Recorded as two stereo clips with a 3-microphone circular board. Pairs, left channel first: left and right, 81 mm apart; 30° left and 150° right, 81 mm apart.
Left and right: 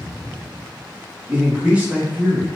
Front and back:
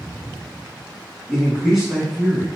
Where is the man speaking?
70° right, 1.0 m.